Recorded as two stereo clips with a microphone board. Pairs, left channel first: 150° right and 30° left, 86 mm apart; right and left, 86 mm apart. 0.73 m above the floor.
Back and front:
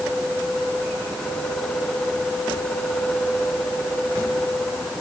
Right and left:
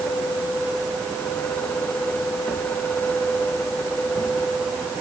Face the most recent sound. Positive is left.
No sound to turn to.